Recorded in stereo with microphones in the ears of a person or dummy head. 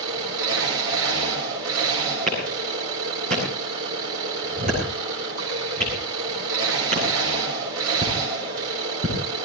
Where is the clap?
45° right (ahead or behind), 8.5 m.